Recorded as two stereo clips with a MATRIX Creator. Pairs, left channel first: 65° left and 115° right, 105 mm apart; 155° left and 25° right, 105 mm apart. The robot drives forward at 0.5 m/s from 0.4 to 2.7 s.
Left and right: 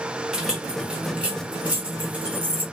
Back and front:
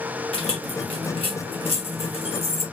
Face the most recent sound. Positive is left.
turn(degrees=170)